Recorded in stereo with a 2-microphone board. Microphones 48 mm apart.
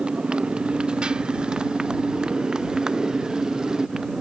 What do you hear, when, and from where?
0.0 s a motorcycle: 20° right (ahead or behind); by 4.2 s 15° right (ahead or behind)